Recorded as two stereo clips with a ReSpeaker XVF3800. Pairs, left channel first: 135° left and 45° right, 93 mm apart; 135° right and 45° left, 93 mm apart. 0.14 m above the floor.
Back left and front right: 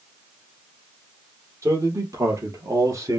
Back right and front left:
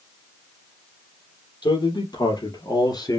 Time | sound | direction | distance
1.6 | a man speaking | 100° right | 3.5 m